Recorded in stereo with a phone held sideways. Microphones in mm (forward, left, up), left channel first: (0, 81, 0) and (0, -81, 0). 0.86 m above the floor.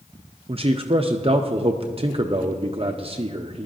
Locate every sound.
0.5 s a man speaking: 40° right (ahead or behind), 0.5 m